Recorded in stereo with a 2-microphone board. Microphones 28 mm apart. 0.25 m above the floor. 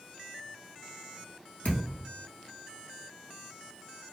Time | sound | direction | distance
1.6 | a thud | 75° left (ahead or behind) | 1.1 m